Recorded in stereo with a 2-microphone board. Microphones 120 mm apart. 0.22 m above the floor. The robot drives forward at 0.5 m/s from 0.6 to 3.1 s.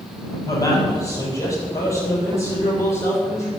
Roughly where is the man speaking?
Left.